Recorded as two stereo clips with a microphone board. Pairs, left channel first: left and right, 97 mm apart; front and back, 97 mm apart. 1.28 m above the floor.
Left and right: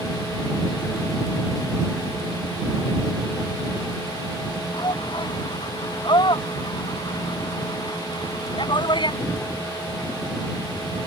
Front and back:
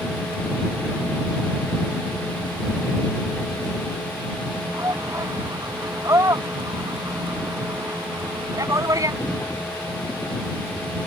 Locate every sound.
4.7 s a shout: 125° left